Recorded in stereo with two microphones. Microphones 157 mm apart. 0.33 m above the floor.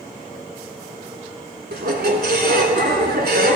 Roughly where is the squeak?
Right.